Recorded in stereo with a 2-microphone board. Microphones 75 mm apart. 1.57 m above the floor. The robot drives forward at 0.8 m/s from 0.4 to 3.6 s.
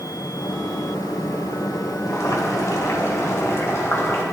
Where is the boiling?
55° left (ahead or behind), 2.5 m; by 4.2 s 40° left (ahead or behind), 3 m.